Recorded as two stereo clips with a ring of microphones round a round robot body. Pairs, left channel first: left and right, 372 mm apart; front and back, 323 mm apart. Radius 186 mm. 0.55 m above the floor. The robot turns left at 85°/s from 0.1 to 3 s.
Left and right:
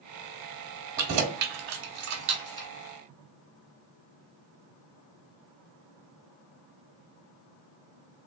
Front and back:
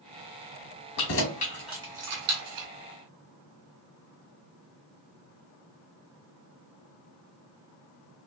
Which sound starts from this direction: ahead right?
Keys jangling, at 1.0 s.